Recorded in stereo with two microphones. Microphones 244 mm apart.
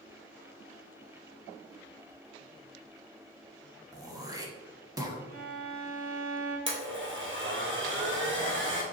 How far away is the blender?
About 1.5 m.